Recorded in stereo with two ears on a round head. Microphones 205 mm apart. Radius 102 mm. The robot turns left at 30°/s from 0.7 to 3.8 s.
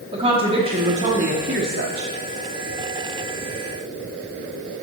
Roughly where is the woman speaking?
Ahead right.